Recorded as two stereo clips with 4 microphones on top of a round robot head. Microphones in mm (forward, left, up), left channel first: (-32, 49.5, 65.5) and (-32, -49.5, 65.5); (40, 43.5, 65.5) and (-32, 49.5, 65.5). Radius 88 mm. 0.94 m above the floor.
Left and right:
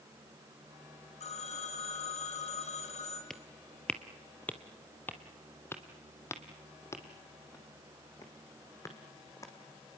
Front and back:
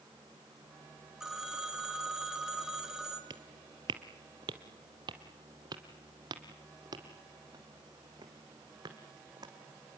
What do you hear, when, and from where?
1.2 s a phone ringing: 95° left, 4.5 m
3.3 s footsteps: 175° left, 1.4 m; by 10.0 s 145° left, 4.5 m